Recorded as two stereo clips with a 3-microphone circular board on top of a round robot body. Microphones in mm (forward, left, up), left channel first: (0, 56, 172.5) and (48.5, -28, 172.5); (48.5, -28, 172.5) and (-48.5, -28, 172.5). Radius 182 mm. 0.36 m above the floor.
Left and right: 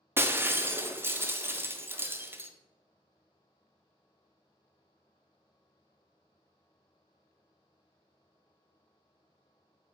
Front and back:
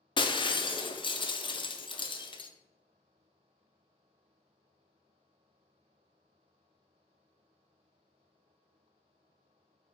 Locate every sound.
0.2 s breaking glass: 5° left, 0.6 m